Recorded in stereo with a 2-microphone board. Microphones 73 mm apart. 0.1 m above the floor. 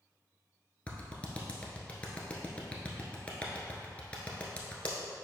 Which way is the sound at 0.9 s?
20° left (ahead or behind).